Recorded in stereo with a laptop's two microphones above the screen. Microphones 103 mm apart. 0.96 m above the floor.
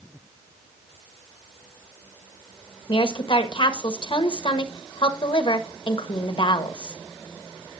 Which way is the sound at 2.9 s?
50° left (ahead or behind).